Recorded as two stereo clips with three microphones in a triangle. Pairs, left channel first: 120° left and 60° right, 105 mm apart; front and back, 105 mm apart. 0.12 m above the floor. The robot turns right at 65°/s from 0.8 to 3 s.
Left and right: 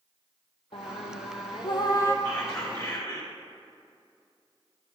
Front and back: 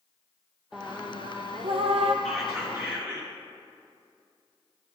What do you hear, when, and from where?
0.7 s singing: 100° left, 0.8 m; by 2.1 s 175° right, 0.8 m
2.2 s whispering: 85° left, 1.7 m; by 3.3 s 130° left, 1.7 m